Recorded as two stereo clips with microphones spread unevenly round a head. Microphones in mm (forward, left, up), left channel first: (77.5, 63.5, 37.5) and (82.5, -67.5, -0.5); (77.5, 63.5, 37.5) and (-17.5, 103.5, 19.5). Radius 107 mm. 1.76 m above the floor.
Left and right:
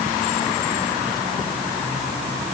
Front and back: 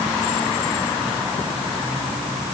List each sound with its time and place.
Only background noise.